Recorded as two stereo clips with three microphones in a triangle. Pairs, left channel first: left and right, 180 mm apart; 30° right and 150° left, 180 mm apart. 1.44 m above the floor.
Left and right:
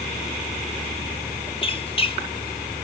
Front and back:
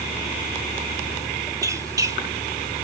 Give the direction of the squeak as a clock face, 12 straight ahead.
9 o'clock.